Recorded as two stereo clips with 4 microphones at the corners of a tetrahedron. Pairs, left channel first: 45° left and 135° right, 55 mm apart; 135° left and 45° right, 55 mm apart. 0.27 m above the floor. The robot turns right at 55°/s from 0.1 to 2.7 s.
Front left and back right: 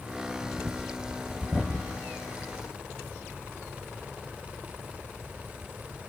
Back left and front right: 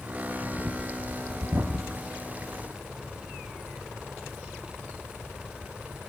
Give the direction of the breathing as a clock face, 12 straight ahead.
4 o'clock.